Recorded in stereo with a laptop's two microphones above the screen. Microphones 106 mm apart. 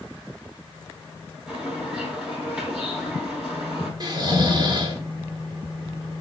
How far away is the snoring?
About 1.9 m.